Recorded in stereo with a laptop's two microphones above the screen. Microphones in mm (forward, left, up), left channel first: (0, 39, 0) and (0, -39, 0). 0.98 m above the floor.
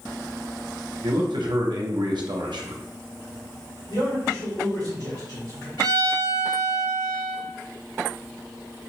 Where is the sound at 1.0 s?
70° right (ahead or behind), 0.7 m.